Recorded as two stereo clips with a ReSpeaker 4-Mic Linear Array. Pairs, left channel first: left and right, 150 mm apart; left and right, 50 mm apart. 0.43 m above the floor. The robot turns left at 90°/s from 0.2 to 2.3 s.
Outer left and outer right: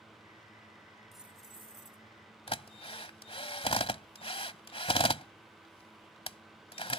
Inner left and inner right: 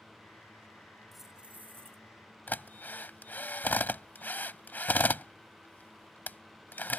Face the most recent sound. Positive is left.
turn(degrees=40)  # may be behind; listen again after turning